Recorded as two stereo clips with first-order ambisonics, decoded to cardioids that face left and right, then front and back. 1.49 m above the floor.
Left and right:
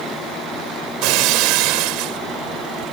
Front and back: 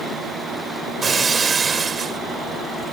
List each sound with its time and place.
1.0 s breaking glass: 110° right